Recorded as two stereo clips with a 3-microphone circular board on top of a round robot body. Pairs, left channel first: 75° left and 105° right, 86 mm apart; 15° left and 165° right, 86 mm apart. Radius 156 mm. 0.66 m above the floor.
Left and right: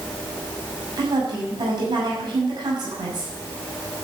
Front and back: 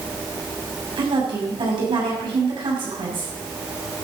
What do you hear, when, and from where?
1.0 s a woman speaking: 140° right, 6.5 m